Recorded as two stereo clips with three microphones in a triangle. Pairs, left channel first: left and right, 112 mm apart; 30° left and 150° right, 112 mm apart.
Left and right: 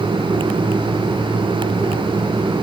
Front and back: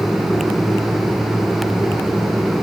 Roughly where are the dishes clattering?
No dishes clattering in this recording.